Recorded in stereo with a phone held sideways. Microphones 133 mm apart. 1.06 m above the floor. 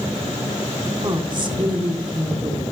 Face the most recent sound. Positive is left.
turn(degrees=-35)  # may be behind; listen again after turning